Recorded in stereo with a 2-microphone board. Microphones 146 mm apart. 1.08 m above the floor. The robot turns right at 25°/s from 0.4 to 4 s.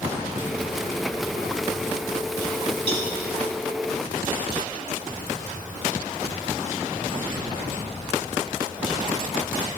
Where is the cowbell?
45° right (ahead or behind), 2 m; by 3.1 s 50° right (ahead or behind), 2 m.